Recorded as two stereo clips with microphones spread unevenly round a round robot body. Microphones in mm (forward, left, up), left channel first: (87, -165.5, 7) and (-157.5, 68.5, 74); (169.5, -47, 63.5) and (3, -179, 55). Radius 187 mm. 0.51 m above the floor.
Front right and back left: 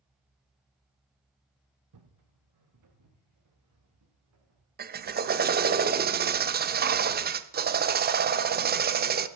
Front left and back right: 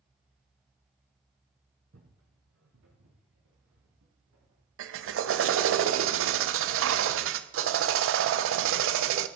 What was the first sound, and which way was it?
Footsteps, 160° left.